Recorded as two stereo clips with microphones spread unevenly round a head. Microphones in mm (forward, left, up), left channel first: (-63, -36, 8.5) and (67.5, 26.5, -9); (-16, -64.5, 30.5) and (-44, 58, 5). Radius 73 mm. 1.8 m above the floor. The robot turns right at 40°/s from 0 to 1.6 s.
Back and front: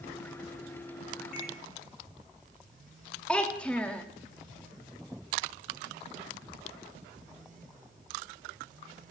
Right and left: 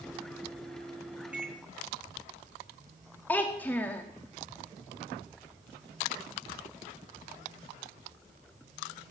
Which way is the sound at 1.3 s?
175° right.